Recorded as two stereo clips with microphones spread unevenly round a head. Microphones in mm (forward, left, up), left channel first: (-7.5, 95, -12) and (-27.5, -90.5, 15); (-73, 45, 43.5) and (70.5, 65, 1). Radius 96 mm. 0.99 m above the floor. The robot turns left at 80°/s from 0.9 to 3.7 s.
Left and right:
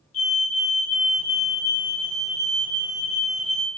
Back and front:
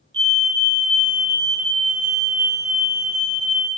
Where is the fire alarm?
40° left, 1.6 m; by 3.7 s straight behind, 1.6 m.